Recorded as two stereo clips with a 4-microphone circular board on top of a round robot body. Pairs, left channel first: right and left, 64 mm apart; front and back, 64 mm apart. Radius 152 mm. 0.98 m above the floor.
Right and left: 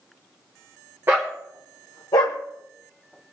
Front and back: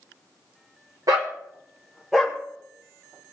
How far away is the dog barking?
About 0.9 m.